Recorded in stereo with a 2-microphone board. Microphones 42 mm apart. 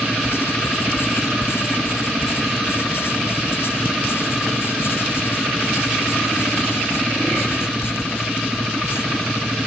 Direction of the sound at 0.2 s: 65° left (ahead or behind).